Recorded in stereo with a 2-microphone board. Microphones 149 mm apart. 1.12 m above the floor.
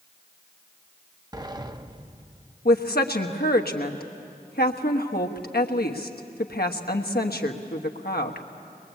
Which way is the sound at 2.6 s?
75° left (ahead or behind).